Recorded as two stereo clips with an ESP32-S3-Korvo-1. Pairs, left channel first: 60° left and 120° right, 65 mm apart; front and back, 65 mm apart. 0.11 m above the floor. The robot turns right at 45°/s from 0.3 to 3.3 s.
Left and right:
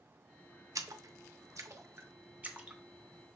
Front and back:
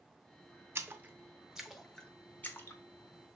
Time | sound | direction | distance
0.8 | a splash | 130° right | 0.5 m